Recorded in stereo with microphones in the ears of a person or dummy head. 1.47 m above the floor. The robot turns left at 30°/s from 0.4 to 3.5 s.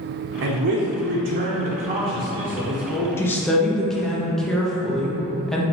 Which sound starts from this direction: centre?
A woman speaking, at 3.2 s.